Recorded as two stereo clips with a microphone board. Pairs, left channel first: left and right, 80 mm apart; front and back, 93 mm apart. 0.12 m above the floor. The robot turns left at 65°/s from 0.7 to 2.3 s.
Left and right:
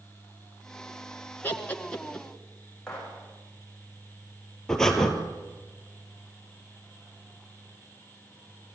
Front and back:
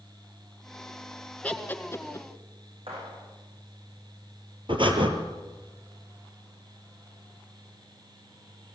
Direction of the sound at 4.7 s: 175° left.